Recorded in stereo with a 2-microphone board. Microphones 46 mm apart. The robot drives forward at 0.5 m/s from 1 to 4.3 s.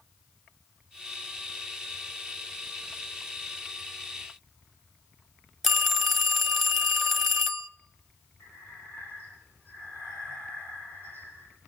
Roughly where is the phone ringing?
Centre.